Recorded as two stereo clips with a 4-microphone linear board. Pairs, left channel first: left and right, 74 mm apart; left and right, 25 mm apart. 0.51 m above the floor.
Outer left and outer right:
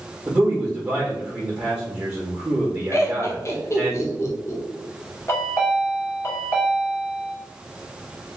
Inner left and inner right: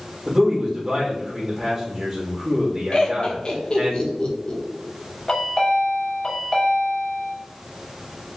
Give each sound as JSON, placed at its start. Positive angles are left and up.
{"t": 0.3, "sound": "a man speaking", "side_deg": -25, "distance_m": 2.0}
{"t": 2.9, "sound": "laughter", "side_deg": 40, "distance_m": 1.2}
{"t": 5.3, "sound": "a chime", "side_deg": 35, "distance_m": 1.4}